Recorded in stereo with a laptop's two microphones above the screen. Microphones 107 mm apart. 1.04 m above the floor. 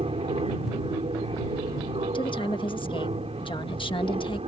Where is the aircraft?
65° right (ahead or behind).